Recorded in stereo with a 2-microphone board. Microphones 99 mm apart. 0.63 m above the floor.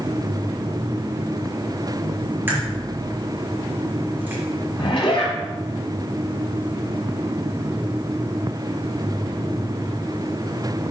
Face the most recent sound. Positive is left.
turn(degrees=65)  # may be behind; listen again after turning